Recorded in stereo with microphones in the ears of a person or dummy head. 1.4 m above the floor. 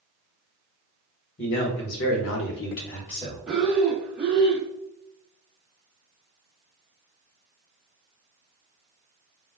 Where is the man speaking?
50° left (ahead or behind), 1.1 m; by 3.4 s 30° left (ahead or behind), 1.1 m.